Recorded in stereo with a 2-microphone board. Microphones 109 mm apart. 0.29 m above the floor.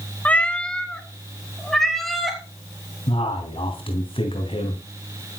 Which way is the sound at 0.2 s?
15° left (ahead or behind).